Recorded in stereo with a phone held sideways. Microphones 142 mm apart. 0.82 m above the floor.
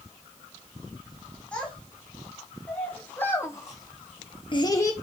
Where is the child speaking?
10° left (ahead or behind), 4.5 m; by 4.9 s 20° left (ahead or behind), 1.1 m.